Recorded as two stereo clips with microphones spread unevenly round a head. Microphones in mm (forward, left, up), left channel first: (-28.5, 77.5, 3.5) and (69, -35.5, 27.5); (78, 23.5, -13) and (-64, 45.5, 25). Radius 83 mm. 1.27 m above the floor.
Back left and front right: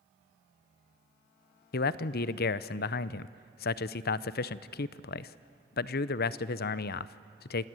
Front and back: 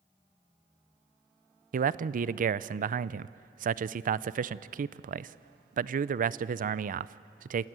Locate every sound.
1.7 s a man speaking: 135° left, 0.5 m